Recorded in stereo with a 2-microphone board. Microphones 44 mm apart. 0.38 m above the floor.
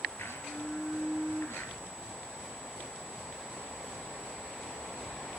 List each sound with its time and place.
0.2 s a blender: 80° left, 5 m